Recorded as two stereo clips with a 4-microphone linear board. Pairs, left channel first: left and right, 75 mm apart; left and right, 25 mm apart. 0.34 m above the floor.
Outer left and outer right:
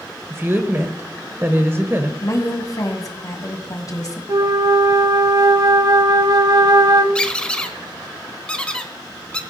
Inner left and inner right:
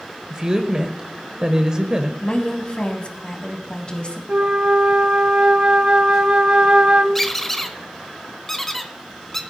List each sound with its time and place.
0.3 s a woman speaking: 35° right (ahead or behind), 1.0 m
2.2 s a woman speaking: 55° left (ahead or behind), 1.9 m
4.3 s a flute: 60° right (ahead or behind), 0.6 m
7.2 s a squeak: 15° left (ahead or behind), 0.9 m